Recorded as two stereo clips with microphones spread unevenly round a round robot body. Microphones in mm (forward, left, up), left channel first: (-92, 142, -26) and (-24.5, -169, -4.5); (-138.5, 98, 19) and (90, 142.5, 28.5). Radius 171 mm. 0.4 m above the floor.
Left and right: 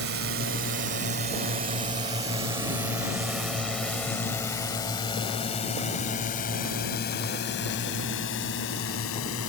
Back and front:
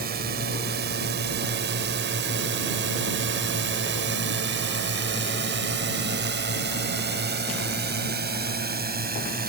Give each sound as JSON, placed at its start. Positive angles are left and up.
{"t": 0.0, "sound": "a drone", "azimuth_deg": -35}